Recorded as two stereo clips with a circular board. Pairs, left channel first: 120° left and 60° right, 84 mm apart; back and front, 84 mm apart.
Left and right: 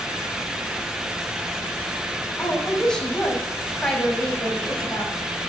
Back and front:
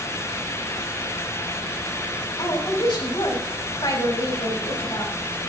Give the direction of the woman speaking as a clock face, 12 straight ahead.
5 o'clock.